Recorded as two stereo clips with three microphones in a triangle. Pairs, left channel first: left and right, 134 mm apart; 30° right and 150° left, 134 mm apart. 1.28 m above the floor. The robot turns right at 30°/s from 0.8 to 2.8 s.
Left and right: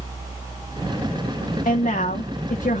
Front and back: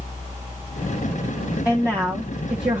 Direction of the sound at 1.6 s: 70° left.